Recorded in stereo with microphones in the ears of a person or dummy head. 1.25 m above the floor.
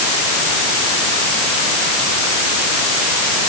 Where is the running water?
I don't hear running water.